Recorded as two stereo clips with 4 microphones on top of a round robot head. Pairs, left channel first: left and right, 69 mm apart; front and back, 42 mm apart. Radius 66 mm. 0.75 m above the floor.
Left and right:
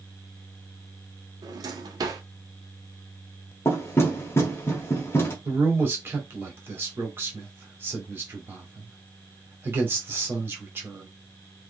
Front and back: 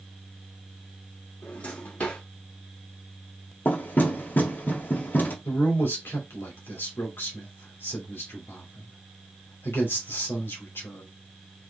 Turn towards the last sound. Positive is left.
turn(degrees=-35)